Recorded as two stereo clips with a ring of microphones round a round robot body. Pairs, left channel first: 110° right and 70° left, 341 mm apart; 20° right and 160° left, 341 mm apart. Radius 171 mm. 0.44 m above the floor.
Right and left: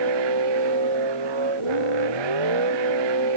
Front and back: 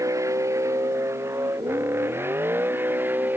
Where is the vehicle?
75° left.